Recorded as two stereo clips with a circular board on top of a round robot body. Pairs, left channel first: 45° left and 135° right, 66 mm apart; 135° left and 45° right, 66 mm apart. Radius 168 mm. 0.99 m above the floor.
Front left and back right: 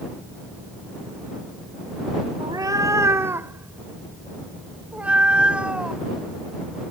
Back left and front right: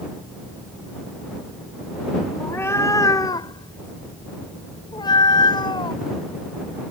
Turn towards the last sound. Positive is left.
turn(degrees=145)